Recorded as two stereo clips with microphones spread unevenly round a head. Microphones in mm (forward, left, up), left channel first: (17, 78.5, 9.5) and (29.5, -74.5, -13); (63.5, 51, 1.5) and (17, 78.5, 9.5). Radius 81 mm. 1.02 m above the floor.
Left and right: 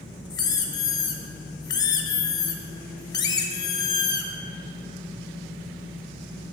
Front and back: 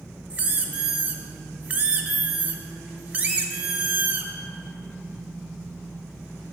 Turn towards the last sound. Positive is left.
turn(degrees=125)